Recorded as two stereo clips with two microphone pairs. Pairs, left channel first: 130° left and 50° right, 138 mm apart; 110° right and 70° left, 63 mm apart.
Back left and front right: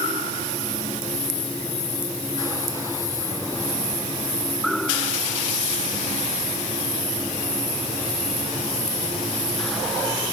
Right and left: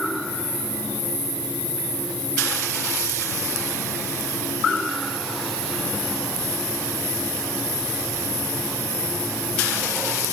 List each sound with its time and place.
Only background noise.